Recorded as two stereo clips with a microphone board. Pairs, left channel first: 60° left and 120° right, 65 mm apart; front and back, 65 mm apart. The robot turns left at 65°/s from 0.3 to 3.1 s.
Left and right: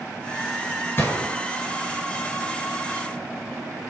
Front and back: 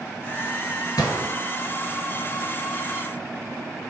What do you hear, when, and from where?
1.0 s a gunshot: 5° left, 1.4 m; by 1.3 s 15° right, 1.4 m